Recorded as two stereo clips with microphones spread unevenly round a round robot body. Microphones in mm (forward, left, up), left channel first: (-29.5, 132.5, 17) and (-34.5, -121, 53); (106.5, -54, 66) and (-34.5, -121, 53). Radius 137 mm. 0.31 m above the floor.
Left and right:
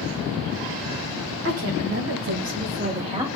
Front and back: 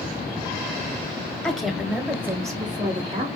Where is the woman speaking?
60° right, 2.5 m; by 3.3 s 165° right, 1.7 m.